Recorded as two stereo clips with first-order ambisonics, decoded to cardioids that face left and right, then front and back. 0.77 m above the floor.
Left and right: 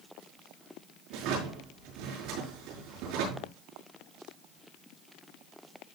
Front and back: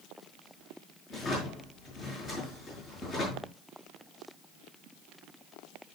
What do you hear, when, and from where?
1.1 s a drawer: 65° right, 6 m